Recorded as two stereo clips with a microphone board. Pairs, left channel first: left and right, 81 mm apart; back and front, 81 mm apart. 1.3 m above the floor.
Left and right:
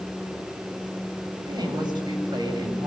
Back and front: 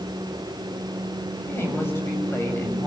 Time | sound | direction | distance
1.4 | a woman speaking | 120° right | 8 m